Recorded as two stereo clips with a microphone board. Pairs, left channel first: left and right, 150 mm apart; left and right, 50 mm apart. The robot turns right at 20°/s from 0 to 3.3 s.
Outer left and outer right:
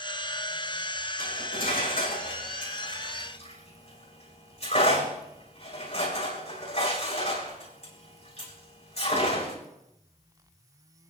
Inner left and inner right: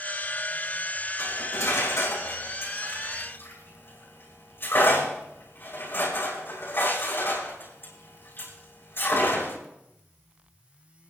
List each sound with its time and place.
1.2 s cutlery clinking: 85° left, 6.5 m; by 9.6 s 45° left (ahead or behind), 6.5 m